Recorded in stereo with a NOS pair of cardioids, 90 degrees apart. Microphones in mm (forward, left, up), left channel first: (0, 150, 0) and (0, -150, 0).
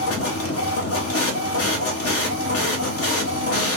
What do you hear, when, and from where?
0.0 s a machine running: 50° left, 0.9 m